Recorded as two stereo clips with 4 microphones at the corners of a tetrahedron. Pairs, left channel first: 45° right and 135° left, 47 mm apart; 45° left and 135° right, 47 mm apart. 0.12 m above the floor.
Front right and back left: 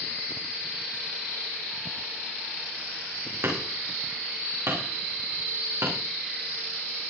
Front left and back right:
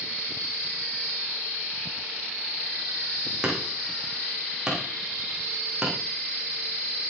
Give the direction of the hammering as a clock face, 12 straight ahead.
7 o'clock.